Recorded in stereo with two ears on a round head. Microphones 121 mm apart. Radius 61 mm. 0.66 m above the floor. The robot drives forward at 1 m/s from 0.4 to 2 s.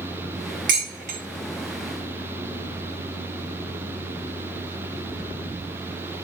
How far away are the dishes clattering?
About 3 m.